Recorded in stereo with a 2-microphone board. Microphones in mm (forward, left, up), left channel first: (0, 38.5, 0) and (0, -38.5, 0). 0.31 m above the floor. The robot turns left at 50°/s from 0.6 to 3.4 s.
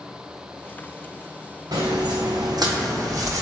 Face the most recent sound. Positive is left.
turn(degrees=-45)  # may be behind; listen again after turning